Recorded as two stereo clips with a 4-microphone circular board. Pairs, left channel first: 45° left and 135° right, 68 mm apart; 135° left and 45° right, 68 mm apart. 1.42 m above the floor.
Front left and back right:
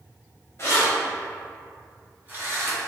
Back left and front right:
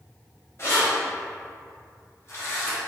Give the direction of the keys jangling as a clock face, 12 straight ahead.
9 o'clock.